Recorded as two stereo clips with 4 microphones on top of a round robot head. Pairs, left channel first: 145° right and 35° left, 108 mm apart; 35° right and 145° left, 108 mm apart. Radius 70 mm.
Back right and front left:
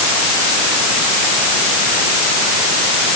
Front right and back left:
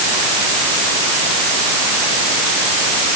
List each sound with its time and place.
Only background noise.